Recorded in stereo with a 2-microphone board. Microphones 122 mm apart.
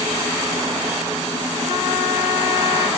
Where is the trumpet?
30° right (ahead or behind), 1.1 m.